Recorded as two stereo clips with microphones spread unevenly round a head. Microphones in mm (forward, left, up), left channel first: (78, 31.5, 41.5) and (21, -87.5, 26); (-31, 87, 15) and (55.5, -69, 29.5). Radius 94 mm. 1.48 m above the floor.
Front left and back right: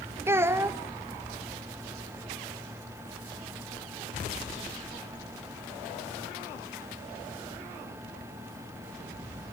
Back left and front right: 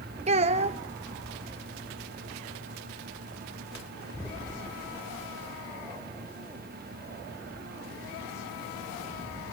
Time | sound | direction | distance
0.3 | a child speaking | 45° right | 0.9 m